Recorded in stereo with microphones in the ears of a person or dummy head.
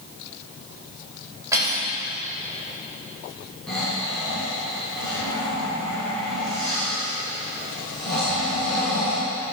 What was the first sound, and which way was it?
Cutlery clinking, 20° right (ahead or behind).